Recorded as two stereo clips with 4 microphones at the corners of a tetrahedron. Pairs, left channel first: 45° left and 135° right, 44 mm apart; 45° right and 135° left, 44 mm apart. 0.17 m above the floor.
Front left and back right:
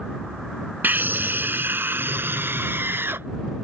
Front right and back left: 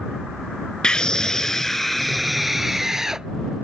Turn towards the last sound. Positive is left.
turn(degrees=-150)